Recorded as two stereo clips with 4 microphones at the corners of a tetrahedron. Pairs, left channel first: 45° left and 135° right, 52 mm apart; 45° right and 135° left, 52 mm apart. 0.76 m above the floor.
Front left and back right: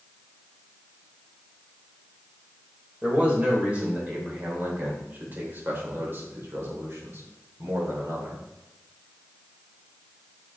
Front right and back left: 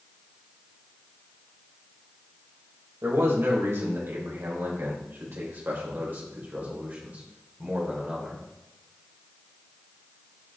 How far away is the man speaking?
About 4 m.